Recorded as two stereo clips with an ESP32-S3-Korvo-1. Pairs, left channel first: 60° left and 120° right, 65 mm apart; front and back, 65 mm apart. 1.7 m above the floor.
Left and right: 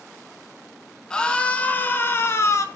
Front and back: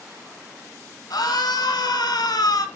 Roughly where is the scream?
Ahead.